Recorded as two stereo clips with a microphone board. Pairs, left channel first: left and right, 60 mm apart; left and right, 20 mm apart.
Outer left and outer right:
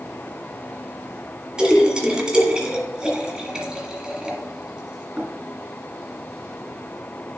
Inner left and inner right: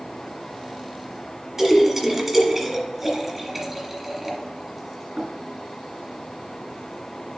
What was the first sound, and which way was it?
A splash, 15° right (ahead or behind).